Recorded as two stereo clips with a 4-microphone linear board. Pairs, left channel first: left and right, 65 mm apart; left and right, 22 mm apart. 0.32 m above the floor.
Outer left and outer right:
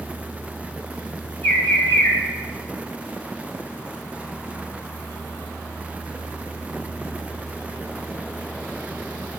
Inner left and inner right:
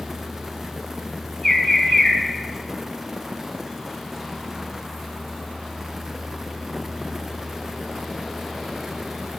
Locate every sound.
1.4 s a bird: 25° left (ahead or behind), 0.9 m